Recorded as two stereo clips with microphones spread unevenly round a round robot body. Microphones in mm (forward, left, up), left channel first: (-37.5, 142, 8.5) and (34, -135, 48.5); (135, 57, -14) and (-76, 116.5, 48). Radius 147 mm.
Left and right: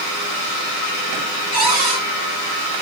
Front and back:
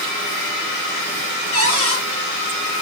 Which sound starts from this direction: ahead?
A cupboard door, at 1.5 s.